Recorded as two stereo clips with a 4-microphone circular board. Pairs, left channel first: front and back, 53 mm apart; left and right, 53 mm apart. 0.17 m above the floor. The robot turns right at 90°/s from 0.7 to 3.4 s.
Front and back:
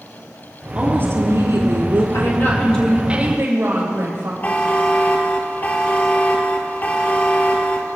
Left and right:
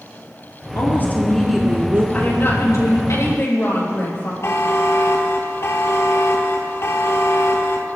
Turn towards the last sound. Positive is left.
turn(degrees=60)